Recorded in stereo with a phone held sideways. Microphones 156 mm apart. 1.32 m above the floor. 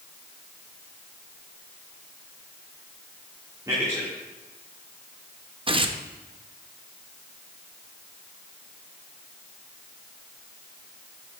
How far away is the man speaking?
About 1.9 m.